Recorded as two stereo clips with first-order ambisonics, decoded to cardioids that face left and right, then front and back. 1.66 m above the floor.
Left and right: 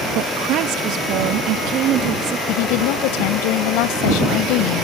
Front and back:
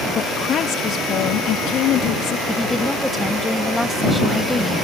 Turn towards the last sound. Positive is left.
turn(degrees=90)